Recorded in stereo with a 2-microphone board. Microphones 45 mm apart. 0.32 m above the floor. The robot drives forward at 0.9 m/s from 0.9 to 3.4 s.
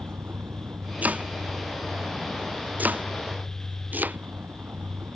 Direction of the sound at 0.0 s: 55° right (ahead or behind).